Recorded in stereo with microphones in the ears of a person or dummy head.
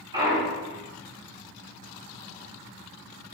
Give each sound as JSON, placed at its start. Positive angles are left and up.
{"t": 0.1, "sound": "a clunk", "side_deg": -25, "distance_m": 3.0}